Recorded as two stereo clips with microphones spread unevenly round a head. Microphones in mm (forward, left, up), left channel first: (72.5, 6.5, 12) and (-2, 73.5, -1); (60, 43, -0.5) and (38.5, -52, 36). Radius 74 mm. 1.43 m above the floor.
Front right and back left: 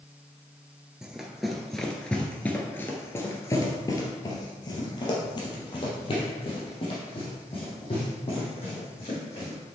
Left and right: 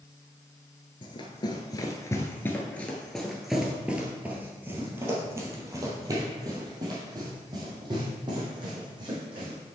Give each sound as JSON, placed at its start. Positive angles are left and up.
{"t": 1.0, "sound": "running footsteps", "azimuth_deg": 45, "distance_m": 1.6}